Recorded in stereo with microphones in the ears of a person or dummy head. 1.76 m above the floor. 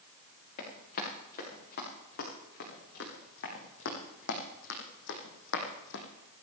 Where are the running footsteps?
50° left (ahead or behind), 8.5 m; by 6.0 s 65° left (ahead or behind), 4 m.